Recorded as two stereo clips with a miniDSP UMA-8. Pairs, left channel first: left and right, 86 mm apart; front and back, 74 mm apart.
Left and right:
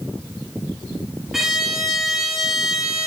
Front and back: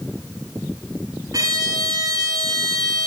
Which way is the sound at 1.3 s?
175° right.